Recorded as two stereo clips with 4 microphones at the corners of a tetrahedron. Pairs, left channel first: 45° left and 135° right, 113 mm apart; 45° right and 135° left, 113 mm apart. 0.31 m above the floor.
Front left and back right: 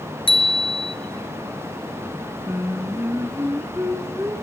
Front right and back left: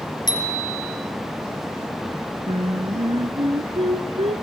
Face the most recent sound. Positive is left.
turn(degrees=155)